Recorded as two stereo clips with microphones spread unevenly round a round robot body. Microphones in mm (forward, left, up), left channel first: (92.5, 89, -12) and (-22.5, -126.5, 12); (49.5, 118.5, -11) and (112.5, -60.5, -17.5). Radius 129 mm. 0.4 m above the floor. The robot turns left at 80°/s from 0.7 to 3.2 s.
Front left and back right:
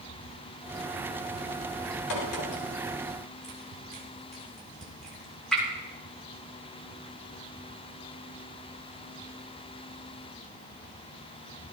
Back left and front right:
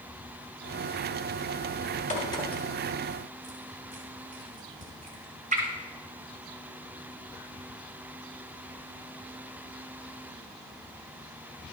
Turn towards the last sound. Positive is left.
turn(degrees=-25)